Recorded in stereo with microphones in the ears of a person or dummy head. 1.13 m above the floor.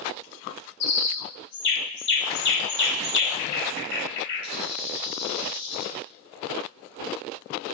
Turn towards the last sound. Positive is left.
turn(degrees=60)  # may be behind; listen again after turning